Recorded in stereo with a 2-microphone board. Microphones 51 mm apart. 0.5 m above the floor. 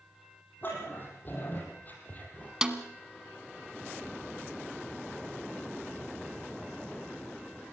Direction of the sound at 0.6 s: 40° left (ahead or behind).